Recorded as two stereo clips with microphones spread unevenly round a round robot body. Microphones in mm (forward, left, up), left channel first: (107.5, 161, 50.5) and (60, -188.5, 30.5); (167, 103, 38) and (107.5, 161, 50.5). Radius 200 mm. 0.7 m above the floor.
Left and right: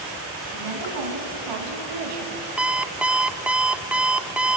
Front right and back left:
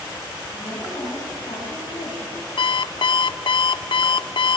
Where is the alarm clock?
10° right, 0.5 m.